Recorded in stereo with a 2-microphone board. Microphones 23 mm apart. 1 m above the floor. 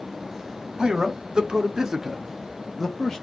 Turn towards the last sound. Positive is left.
turn(degrees=20)  # may be behind; listen again after turning